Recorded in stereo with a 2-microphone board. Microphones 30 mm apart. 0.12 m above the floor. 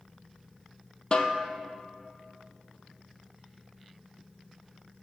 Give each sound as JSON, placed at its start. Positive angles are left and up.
{"t": 1.1, "sound": "a snare drum", "side_deg": 40, "distance_m": 0.5}